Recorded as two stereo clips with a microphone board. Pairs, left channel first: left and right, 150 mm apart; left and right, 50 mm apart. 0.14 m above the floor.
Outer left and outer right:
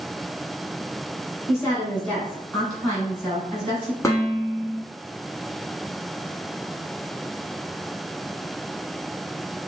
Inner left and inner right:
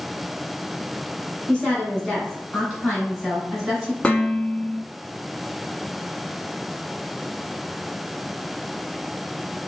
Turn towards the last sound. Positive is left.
turn(degrees=20)  # may be behind; listen again after turning